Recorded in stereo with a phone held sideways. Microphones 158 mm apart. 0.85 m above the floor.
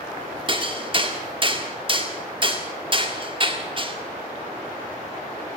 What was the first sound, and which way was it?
Hammering, 35° right (ahead or behind).